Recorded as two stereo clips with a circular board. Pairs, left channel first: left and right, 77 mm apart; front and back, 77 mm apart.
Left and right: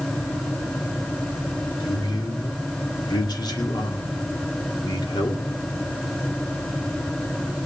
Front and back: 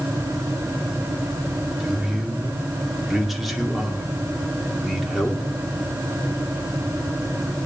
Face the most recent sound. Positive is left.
turn(degrees=90)